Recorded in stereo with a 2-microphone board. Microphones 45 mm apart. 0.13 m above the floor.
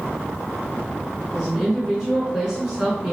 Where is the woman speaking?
10° right (ahead or behind), 1.6 m.